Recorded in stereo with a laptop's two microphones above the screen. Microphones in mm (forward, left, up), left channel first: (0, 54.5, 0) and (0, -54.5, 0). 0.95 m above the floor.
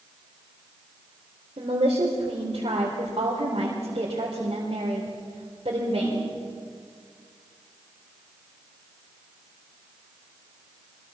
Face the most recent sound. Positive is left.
turn(degrees=-55)  # may be behind; listen again after turning